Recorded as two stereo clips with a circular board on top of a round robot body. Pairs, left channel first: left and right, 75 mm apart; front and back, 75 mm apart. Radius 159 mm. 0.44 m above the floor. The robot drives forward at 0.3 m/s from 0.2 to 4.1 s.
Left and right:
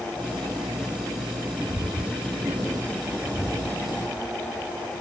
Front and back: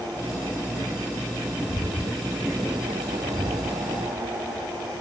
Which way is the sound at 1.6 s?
25° left.